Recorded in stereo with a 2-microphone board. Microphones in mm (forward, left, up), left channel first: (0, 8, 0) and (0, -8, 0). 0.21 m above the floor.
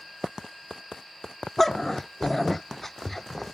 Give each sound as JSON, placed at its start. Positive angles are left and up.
{"t": 1.6, "sound": "a dog barking", "side_deg": 15}